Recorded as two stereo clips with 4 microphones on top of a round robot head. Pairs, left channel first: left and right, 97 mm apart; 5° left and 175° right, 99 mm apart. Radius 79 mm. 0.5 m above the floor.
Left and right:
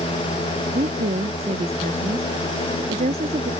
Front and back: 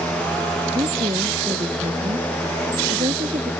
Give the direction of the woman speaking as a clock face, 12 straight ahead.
4 o'clock.